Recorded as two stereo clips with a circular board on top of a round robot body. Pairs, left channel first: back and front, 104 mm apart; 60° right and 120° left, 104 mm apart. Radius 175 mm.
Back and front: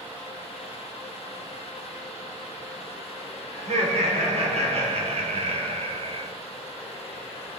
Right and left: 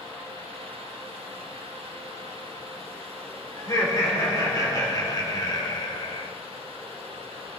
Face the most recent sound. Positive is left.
turn(degrees=-25)